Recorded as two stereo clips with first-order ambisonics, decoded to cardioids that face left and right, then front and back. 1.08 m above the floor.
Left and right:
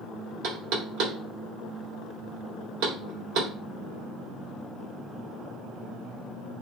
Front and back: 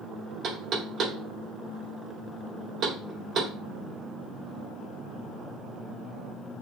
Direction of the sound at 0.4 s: 120° right.